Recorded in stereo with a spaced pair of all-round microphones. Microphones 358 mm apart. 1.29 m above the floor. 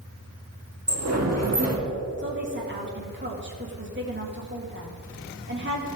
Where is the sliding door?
45° right (ahead or behind), 1.7 m.